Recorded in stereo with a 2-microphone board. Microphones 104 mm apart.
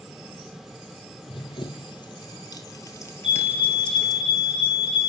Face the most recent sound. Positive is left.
turn(degrees=60)  # may be behind; listen again after turning